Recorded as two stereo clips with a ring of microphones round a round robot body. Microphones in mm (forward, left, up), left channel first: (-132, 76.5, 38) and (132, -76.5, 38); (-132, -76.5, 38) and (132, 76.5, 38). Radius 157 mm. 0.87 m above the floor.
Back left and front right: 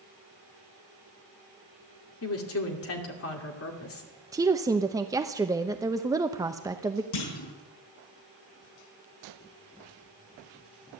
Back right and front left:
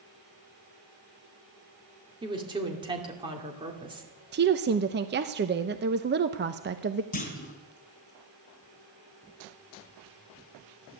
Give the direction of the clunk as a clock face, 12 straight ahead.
7 o'clock.